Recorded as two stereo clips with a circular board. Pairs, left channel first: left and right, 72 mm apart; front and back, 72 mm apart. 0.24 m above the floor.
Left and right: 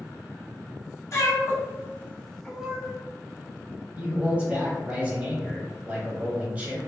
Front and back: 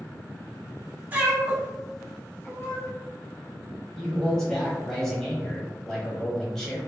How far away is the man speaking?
About 0.9 m.